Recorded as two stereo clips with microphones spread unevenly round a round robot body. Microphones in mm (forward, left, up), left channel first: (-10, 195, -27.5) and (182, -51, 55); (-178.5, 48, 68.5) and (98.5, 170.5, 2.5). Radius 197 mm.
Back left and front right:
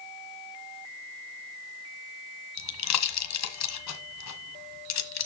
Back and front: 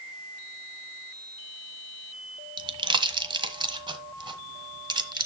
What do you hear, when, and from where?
2.6 s a pop: 95° left, 1.4 m